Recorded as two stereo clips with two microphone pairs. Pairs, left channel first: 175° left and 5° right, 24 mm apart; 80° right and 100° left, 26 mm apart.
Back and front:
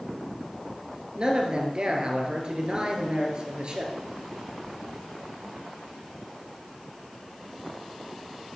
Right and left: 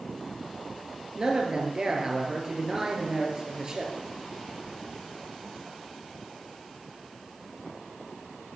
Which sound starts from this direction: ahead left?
A man speaking, at 1.1 s.